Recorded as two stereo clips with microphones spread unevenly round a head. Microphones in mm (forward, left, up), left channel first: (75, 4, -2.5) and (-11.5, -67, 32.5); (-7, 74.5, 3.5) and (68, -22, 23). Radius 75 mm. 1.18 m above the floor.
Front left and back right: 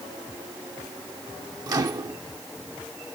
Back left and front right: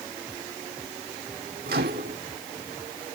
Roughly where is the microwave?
Right.